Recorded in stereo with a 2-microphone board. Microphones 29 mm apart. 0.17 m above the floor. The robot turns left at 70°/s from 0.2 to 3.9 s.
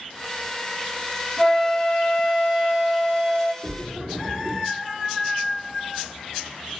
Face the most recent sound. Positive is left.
turn(degrees=-55)  # may be behind; listen again after turning